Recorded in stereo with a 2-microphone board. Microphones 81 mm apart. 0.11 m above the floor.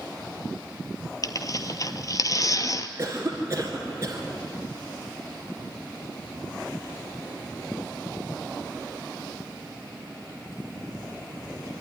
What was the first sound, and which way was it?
Tearing paper, 45° left (ahead or behind).